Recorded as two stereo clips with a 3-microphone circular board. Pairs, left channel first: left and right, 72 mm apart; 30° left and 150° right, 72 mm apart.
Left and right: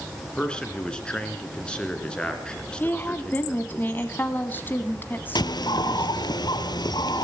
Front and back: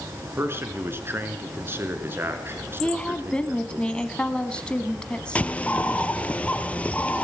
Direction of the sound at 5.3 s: 100° left.